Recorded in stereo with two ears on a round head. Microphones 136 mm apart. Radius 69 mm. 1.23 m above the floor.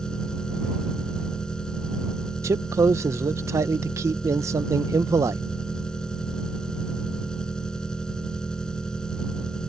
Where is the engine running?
5° left (ahead or behind).